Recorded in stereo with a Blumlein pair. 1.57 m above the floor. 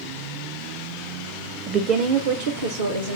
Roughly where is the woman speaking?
Ahead.